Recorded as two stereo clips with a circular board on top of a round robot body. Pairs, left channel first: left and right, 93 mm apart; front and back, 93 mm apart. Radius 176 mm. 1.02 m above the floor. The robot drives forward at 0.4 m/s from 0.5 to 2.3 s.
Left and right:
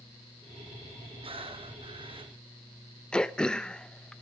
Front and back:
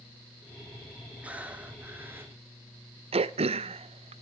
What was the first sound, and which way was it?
Breathing, 105° right.